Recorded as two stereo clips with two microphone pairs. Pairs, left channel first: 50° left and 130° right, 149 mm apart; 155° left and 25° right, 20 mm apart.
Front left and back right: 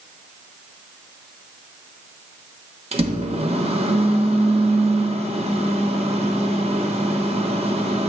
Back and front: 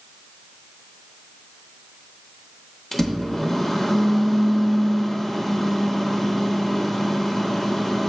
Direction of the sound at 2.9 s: 140° right.